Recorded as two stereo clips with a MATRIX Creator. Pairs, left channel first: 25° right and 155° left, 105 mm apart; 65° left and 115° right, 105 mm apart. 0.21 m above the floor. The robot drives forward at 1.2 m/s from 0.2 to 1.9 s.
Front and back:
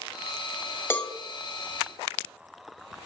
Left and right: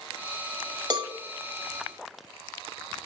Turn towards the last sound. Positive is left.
turn(degrees=-160)